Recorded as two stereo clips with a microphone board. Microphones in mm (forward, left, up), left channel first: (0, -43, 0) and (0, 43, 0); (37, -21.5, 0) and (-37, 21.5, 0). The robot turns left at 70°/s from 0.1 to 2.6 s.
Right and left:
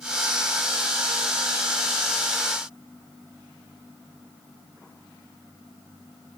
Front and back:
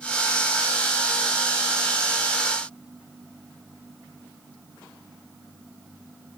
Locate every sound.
Only background noise.